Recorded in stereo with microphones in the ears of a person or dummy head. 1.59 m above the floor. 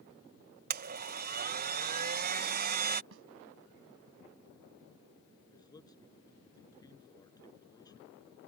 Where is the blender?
55° right (ahead or behind).